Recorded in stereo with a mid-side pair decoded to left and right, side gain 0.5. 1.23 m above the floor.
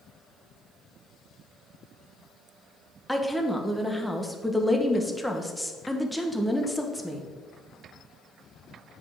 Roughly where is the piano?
No piano in this recording.